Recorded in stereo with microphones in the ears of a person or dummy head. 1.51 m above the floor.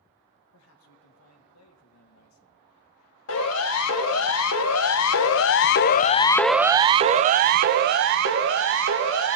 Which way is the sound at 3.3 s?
85° left.